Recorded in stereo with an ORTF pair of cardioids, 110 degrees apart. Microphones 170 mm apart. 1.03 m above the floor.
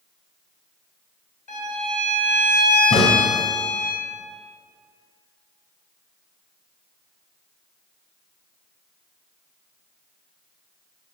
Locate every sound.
1.5 s a violin: 50° left, 2.0 m
2.9 s a crack: 35° left, 1.5 m